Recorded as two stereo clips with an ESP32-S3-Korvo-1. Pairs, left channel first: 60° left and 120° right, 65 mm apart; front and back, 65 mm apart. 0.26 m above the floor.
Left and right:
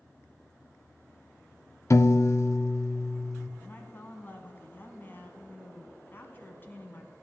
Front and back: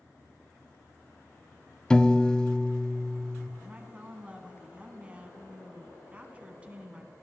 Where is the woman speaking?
110° left, 2 m.